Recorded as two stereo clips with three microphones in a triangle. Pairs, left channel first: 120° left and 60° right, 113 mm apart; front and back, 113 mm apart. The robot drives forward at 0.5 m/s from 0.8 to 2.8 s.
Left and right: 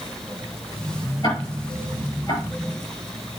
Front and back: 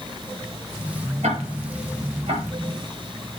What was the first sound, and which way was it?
Ticking, 170° left.